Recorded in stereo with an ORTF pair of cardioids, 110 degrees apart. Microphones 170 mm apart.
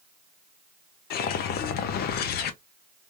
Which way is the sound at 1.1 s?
70° left.